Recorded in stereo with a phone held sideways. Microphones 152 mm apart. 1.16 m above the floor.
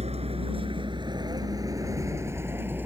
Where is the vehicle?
45° right (ahead or behind); by 2.9 s 10° right (ahead or behind).